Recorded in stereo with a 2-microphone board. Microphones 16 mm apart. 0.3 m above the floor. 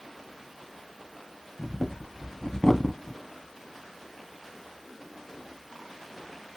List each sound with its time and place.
1.6 s breathing: 35° left (ahead or behind), 0.5 m